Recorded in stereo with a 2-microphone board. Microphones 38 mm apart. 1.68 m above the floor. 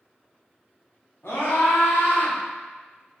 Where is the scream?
80° left, 1.6 m; by 2.4 s 70° left (ahead or behind), 1.1 m.